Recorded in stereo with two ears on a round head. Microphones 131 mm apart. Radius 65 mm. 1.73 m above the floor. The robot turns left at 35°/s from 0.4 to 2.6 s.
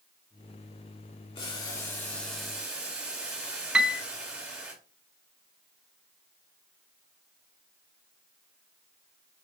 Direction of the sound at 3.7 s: 5° right (ahead or behind).